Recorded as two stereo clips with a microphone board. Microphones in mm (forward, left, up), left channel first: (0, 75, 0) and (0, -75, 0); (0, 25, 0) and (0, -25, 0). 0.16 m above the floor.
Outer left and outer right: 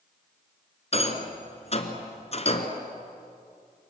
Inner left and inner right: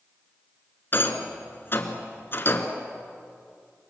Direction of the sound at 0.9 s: 45° left (ahead or behind).